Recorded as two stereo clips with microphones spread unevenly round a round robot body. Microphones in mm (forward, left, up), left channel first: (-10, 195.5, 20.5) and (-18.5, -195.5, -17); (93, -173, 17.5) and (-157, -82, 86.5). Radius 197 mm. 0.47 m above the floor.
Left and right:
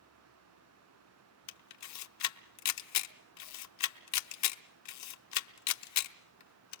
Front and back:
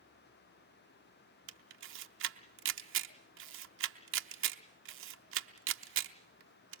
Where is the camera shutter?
120° left, 0.8 m.